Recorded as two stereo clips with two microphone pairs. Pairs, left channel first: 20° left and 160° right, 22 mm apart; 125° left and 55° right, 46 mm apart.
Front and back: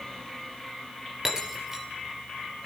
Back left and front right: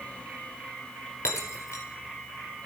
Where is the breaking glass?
125° left, 2.5 m.